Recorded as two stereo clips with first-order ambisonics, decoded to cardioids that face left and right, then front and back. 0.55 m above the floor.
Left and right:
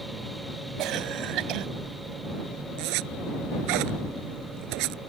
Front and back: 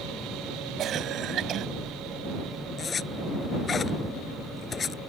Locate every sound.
0.8 s a cough: 125° right
2.8 s a zipper: 70° right